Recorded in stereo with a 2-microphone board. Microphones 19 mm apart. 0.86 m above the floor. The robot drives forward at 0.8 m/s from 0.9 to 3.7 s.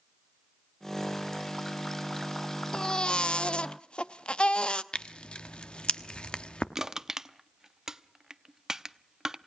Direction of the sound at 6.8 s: 30° right (ahead or behind).